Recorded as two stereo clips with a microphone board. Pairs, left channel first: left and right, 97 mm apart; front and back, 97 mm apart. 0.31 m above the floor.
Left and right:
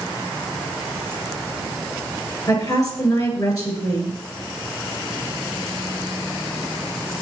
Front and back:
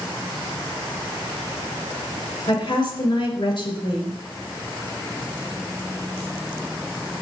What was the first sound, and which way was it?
A woman speaking, 35° left.